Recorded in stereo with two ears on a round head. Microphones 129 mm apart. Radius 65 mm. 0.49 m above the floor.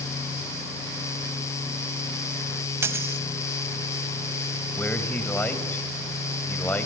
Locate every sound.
2.8 s a dropped coin: 20° right (ahead or behind), 1.2 m
4.8 s a man speaking: 10° left (ahead or behind), 2.5 m